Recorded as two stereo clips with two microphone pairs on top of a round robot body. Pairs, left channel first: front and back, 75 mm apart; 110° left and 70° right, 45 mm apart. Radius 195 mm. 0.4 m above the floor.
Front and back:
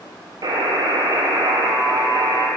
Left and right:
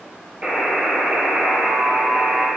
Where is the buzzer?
135° right, 2 m.